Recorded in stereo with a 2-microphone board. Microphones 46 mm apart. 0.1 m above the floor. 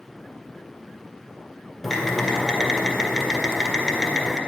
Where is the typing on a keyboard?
10° left (ahead or behind), 1.7 m.